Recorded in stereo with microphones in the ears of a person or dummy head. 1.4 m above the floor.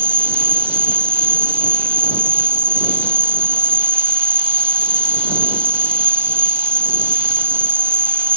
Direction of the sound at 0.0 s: 10° right (ahead or behind).